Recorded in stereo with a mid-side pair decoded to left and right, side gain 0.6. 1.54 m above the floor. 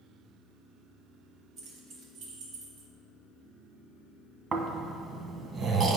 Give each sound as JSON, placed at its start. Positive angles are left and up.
{"t": 1.6, "sound": "keys jangling", "azimuth_deg": -65, "distance_m": 1.7}
{"t": 4.5, "sound": "snoring", "azimuth_deg": -40, "distance_m": 1.1}